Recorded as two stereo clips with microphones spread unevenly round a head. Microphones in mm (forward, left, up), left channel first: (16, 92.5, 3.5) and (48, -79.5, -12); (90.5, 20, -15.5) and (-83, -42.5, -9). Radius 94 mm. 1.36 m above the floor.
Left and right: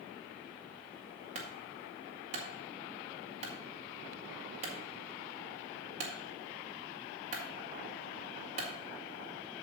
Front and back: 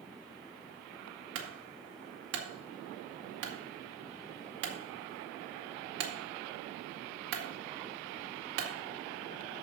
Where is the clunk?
140° right, 1.8 m.